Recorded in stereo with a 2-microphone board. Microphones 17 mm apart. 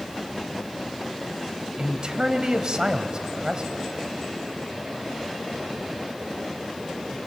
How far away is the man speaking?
About 1.4 m.